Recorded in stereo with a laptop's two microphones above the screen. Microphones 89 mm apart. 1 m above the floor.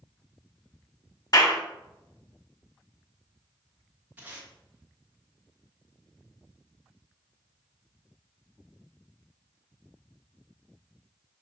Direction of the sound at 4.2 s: 20° right (ahead or behind).